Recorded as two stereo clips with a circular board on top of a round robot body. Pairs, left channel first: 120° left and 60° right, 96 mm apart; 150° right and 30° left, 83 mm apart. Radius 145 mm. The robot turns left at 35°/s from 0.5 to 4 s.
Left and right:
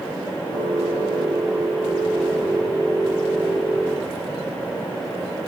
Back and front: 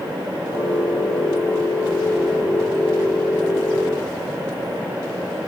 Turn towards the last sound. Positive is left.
No sound to turn to.